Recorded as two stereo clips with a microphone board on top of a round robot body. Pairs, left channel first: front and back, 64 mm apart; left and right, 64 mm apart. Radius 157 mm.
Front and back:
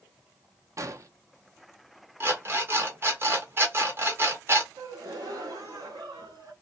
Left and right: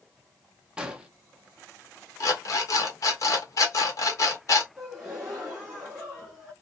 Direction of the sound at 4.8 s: 175° right.